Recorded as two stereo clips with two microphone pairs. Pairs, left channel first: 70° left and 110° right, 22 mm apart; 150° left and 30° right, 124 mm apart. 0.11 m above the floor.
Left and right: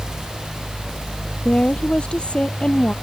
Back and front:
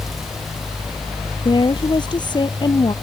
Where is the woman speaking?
105° left.